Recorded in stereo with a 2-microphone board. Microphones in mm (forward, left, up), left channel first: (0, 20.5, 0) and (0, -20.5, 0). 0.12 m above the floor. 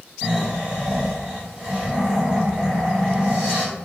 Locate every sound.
0.2 s snoring: 20° right (ahead or behind), 1.8 m